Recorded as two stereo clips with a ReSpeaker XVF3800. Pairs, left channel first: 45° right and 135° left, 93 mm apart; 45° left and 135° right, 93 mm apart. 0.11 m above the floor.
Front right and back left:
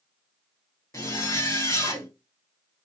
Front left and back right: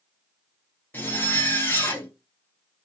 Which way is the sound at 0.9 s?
10° right.